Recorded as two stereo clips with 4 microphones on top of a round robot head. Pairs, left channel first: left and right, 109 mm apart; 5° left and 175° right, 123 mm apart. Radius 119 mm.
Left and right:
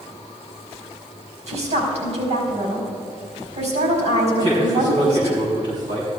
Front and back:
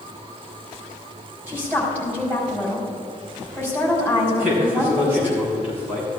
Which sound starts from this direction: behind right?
A man speaking, at 4.3 s.